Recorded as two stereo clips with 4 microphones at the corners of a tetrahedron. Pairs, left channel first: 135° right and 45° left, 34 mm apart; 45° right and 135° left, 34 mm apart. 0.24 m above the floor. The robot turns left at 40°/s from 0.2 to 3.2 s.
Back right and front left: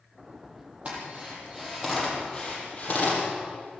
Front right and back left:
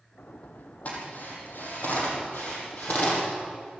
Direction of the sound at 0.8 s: Straight ahead.